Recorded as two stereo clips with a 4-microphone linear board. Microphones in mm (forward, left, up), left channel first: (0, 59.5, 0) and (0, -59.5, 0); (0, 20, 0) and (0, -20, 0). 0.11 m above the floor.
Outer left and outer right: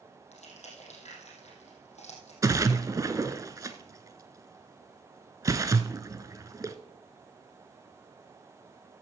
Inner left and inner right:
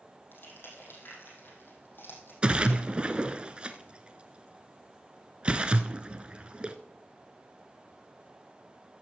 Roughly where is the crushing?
Left.